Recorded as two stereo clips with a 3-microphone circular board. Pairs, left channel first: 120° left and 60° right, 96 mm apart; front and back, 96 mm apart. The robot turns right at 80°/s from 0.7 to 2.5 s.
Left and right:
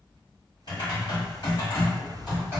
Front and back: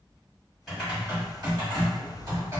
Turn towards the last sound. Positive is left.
turn(degrees=-130)